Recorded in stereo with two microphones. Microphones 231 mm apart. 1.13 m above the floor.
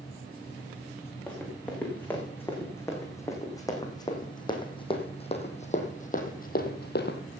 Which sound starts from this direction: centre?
Running footsteps, at 1.3 s.